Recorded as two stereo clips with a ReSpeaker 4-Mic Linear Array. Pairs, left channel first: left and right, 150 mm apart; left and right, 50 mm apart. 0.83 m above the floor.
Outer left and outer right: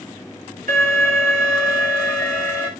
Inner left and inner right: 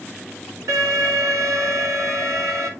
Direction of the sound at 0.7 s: 70° right (ahead or behind).